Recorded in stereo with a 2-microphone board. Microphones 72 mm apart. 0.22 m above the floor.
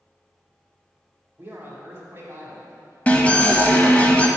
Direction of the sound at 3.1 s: 20° left (ahead or behind).